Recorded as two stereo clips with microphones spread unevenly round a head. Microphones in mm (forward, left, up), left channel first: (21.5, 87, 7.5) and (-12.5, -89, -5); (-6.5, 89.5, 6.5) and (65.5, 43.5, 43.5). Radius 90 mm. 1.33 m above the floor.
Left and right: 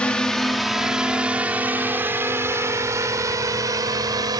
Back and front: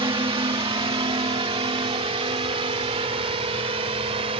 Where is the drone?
5° right; by 4.4 s 30° right.